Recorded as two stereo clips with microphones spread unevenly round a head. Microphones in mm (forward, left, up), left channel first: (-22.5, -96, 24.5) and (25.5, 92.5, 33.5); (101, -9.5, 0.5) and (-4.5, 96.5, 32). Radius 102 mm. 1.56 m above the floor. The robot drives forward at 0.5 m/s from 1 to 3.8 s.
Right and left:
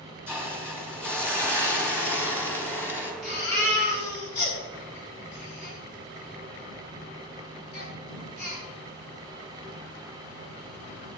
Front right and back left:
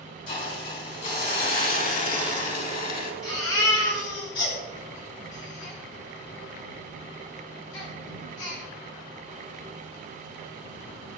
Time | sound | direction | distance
0.3 | a hiss | 20° right | 4.5 m
3.2 | a baby crying | 60° right | 7.5 m